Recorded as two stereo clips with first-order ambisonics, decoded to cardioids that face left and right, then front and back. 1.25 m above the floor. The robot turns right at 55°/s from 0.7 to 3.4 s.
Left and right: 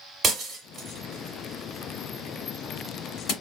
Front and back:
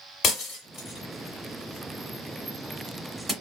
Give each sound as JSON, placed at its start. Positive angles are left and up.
{"t": 0.2, "sound": "breaking glass", "azimuth_deg": -35, "distance_m": 1.5}